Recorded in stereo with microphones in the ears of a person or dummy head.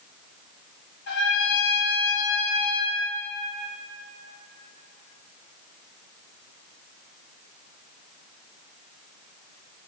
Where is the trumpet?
60° left (ahead or behind), 1.1 m.